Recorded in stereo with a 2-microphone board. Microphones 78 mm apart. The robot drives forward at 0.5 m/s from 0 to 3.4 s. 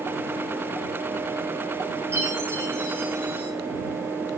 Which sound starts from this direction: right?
A chime, at 2.1 s.